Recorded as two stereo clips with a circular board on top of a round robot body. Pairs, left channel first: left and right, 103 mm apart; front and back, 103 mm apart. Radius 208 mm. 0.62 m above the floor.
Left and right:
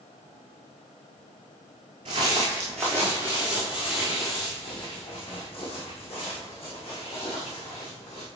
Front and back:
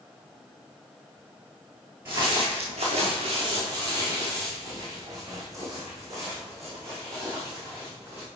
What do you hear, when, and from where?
2.0 s footsteps: 115° right, 0.7 m; by 8.2 s 115° left, 3.5 m